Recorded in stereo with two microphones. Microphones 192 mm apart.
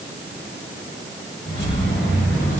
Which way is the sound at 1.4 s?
55° left (ahead or behind).